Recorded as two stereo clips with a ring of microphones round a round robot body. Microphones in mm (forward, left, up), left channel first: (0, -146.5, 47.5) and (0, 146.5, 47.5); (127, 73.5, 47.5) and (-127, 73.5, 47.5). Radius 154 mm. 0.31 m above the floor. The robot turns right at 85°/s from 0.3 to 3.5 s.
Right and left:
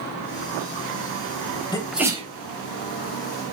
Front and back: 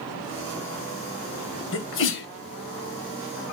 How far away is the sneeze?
About 2 m.